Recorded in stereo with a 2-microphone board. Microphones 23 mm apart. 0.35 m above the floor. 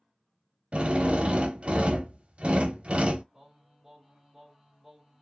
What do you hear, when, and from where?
0.7 s a drill: 60° right (ahead or behind), 0.6 m
3.3 s singing: 5° right (ahead or behind), 2.0 m